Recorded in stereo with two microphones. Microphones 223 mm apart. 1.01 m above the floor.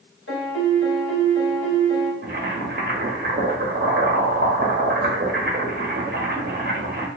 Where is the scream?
No scream in this recording.